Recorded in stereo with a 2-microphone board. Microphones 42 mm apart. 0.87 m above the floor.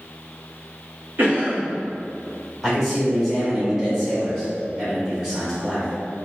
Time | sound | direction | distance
1.2 | a cough | 55° right (ahead or behind) | 1.5 m
2.6 | a man speaking | 5° right (ahead or behind) | 1.7 m